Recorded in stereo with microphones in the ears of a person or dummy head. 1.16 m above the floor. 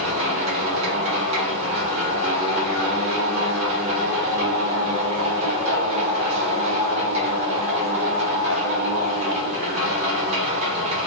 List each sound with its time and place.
0.0 s a machine running: 35° right (ahead or behind), 1.3 m